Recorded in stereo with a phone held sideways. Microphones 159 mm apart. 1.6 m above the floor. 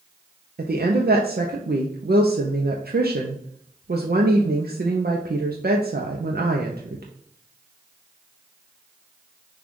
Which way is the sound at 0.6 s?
85° right.